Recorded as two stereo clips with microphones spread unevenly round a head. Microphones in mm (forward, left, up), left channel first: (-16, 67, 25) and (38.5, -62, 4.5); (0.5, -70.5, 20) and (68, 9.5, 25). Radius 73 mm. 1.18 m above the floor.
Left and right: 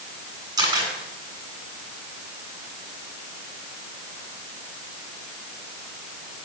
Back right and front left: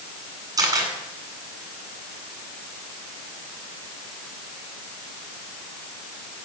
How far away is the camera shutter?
About 9 m.